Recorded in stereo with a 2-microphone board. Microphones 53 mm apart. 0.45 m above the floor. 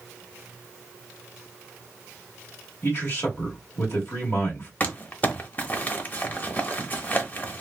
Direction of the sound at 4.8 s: 35° left (ahead or behind).